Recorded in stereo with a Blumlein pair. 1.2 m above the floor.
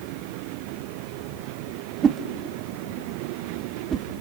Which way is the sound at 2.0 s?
25° right.